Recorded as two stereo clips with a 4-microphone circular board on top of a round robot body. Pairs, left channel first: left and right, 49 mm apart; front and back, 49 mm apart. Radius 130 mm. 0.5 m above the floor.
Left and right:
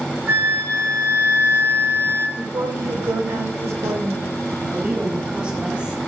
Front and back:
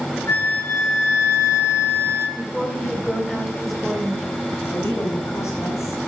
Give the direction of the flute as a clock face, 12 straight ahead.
1 o'clock.